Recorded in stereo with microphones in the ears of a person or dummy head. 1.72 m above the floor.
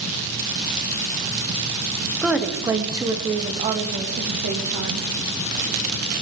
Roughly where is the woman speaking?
Centre.